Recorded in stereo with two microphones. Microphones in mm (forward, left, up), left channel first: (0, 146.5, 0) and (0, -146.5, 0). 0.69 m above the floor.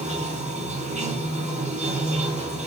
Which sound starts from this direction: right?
Running water, at 0.0 s.